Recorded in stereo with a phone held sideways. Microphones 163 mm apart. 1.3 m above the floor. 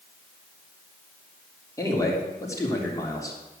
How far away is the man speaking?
About 3.5 m.